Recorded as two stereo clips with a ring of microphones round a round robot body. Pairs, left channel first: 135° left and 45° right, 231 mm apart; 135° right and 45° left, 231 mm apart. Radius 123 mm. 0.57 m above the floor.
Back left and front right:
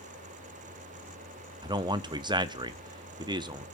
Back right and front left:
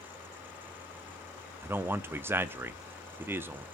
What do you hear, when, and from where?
1.6 s a man speaking: 20° right, 0.6 m